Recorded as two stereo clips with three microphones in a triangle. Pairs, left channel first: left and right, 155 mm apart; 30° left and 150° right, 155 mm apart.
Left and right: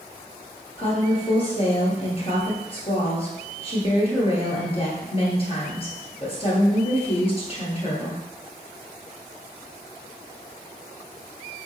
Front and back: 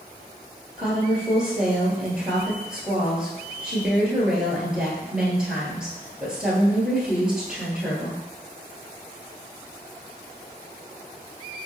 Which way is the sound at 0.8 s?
125° left.